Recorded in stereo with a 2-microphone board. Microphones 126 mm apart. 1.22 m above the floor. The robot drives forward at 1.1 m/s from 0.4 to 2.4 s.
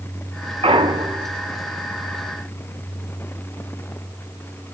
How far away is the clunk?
About 1.2 m.